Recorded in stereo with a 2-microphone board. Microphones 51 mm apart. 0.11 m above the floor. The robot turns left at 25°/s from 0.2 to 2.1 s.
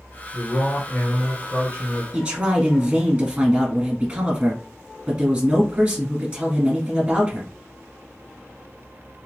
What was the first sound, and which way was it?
A man speaking, 110° left.